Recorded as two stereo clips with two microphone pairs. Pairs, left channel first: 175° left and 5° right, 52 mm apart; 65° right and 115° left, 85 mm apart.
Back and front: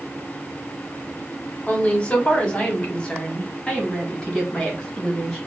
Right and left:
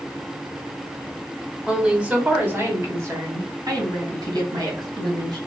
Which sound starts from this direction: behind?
A woman speaking, at 1.7 s.